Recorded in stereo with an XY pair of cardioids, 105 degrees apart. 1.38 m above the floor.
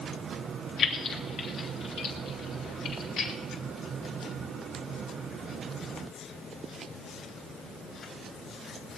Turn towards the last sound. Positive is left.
turn(degrees=80)